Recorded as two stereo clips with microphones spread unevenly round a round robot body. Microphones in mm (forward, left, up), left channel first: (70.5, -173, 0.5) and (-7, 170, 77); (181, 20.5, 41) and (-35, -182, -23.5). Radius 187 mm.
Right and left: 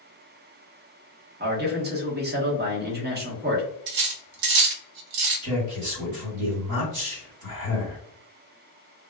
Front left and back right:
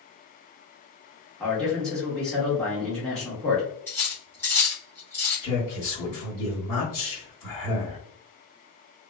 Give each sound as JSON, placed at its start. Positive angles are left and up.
{"t": 1.4, "sound": "a man speaking", "azimuth_deg": 160, "distance_m": 0.7}
{"t": 3.9, "sound": "cutlery clinking", "azimuth_deg": 135, "distance_m": 0.6}
{"t": 5.4, "sound": "a man speaking", "azimuth_deg": 80, "distance_m": 1.7}